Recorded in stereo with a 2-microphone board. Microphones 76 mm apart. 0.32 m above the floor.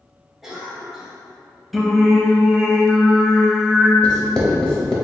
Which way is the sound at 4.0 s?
10° left (ahead or behind).